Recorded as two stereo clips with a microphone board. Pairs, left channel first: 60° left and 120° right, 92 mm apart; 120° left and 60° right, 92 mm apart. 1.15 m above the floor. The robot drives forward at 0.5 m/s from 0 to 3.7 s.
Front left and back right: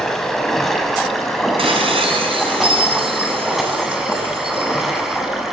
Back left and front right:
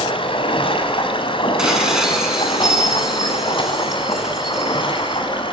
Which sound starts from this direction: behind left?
Running water, at 0.0 s.